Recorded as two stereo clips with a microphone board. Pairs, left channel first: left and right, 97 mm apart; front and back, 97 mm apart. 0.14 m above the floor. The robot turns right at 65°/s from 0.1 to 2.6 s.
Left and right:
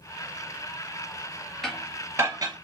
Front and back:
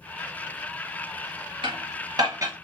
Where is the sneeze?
No sneeze in this recording.